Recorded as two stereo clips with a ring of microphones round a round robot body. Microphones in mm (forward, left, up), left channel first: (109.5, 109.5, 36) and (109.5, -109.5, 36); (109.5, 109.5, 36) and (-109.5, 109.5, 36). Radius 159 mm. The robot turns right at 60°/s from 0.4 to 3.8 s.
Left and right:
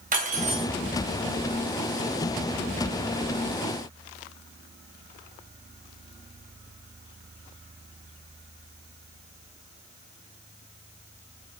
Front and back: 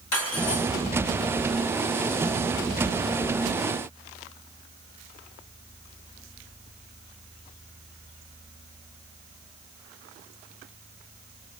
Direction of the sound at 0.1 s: 35° right.